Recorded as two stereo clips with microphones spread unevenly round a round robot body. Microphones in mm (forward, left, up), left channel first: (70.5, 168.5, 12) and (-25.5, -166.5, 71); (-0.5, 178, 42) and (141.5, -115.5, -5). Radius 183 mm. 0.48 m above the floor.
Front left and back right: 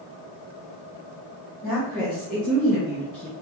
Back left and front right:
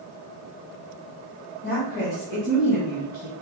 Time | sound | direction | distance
1.6 | a woman speaking | 170° left | 1.8 m